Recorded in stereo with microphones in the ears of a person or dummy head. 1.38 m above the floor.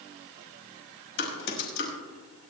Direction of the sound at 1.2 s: 65° left (ahead or behind).